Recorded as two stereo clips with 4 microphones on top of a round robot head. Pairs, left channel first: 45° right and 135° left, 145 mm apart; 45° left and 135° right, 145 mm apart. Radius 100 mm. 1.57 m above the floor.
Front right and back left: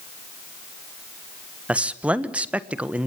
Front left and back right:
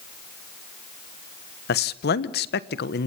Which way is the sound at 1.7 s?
55° left.